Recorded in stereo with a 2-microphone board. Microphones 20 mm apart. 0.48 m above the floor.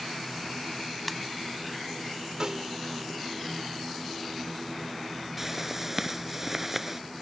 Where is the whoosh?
15° right (ahead or behind).